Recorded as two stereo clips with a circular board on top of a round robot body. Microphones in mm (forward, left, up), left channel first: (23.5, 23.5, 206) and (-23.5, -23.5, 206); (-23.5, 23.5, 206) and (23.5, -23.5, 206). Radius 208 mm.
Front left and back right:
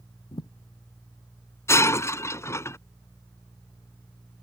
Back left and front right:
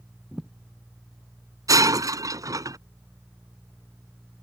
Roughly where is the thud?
Ahead left.